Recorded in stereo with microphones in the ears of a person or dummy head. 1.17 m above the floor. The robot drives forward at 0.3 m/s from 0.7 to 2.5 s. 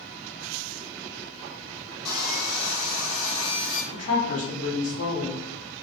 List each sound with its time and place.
2.0 s sawing: 55° left (ahead or behind), 1.0 m; by 3.8 s 45° left (ahead or behind), 1.0 m
3.9 s a woman speaking: 40° left (ahead or behind), 0.9 m